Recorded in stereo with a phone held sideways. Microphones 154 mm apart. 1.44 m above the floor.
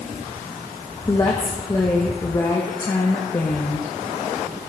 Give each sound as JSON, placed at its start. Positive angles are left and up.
{"t": 1.1, "sound": "a woman speaking", "side_deg": 25, "distance_m": 1.2}